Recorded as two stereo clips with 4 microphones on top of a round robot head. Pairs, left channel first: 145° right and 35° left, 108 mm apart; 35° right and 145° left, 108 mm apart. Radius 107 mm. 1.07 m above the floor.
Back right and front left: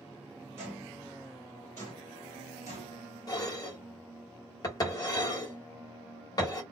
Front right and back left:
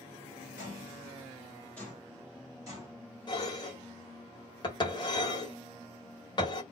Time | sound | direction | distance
0.6 | footsteps | 25° right | 1.2 m
3.3 | dishes clattering | 85° right | 1.1 m